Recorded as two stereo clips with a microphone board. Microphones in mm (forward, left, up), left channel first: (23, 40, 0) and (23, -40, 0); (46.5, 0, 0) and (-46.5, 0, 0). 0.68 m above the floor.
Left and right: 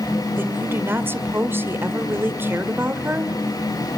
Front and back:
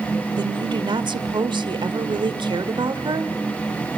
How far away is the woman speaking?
About 1.9 m.